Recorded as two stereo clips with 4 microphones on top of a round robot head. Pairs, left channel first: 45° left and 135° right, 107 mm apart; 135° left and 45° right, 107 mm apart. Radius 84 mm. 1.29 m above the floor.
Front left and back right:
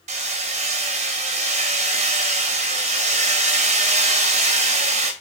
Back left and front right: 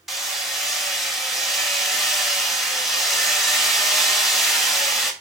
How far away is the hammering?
About 2.5 m.